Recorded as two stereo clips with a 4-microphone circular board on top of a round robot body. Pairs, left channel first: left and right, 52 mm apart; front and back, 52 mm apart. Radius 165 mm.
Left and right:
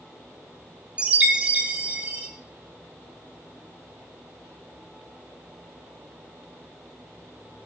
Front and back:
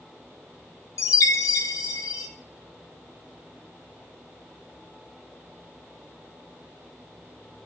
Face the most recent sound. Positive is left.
turn(degrees=-20)